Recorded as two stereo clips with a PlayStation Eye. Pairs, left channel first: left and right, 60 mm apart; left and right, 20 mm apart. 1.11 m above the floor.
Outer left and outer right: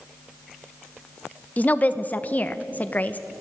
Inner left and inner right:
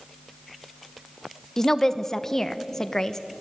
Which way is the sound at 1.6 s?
25° left (ahead or behind).